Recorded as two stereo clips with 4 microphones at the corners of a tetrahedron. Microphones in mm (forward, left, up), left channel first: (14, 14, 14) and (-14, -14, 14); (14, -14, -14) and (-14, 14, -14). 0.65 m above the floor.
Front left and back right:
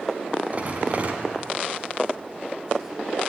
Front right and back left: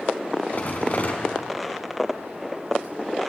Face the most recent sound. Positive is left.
turn(degrees=-85)